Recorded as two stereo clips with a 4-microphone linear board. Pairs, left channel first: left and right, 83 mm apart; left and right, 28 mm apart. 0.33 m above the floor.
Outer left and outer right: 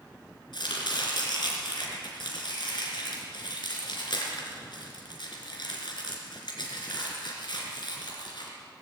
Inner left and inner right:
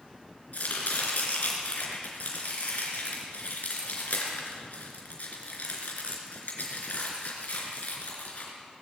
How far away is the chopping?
About 2.5 m.